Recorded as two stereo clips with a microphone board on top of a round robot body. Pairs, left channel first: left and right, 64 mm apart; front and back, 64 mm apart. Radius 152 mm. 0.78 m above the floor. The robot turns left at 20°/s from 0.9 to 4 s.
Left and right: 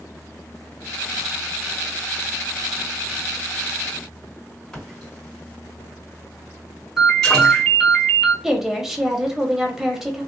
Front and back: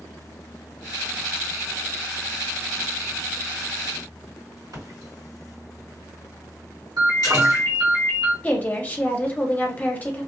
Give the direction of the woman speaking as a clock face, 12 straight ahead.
1 o'clock.